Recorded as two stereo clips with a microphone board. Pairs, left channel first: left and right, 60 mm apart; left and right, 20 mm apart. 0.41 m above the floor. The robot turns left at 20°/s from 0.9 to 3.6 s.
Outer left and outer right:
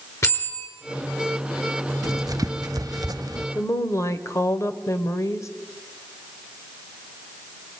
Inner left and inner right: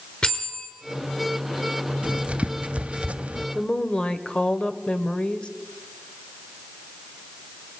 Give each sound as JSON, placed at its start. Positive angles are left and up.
{"t": 0.2, "sound": "a bell", "side_deg": 55, "distance_m": 4.5}
{"t": 2.0, "sound": "writing", "side_deg": -70, "distance_m": 0.6}
{"t": 3.5, "sound": "a woman speaking", "side_deg": 50, "distance_m": 1.4}